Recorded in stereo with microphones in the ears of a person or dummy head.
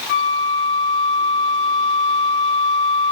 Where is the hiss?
I don't hear a hiss.